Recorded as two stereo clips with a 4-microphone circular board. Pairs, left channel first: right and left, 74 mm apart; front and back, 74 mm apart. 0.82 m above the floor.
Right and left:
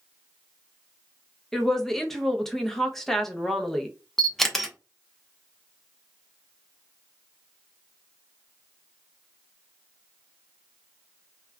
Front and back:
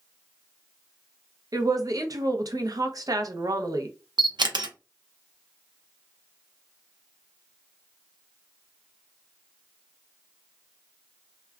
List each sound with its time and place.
1.5 s a woman speaking: 175° right, 0.6 m
4.2 s a camera shutter: 175° right, 0.6 m